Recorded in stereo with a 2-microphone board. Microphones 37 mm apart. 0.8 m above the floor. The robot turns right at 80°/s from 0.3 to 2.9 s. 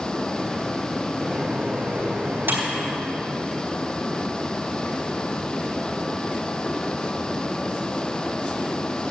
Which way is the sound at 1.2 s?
15° right (ahead or behind).